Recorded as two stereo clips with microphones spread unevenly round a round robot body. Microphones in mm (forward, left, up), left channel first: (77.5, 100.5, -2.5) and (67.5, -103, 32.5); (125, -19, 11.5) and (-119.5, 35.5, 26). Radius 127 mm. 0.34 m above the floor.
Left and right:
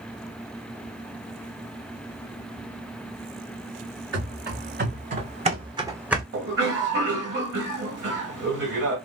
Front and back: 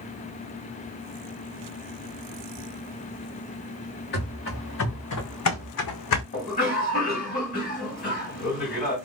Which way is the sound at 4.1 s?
65° right.